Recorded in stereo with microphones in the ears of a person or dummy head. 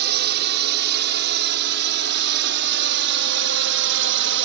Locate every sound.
0.0 s a drone: 55° right (ahead or behind); by 4.5 s 60° right (ahead or behind)